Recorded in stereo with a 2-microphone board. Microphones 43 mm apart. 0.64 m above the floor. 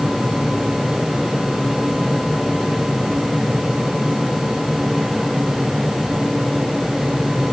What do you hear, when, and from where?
Only background noise.